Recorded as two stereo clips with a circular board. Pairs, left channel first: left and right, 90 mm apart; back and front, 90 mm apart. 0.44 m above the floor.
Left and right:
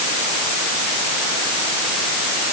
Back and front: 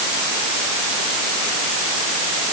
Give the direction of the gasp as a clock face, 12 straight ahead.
No gasp in this recording.